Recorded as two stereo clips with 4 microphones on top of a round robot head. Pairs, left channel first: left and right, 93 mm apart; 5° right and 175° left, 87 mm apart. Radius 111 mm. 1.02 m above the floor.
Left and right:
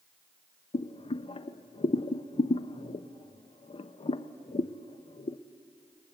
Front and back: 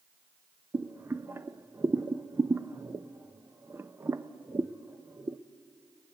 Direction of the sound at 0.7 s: 110° left.